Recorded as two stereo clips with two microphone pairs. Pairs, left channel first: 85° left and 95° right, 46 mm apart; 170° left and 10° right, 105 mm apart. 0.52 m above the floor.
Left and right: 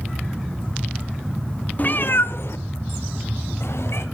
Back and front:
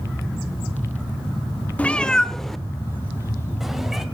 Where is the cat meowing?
100° left, 0.5 m; by 4.0 s 75° left, 1.9 m.